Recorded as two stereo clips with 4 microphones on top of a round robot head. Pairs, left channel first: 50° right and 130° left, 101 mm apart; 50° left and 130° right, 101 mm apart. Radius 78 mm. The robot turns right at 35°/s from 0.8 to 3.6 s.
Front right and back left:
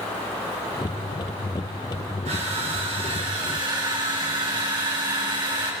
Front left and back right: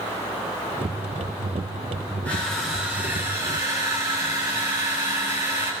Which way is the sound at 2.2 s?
130° left.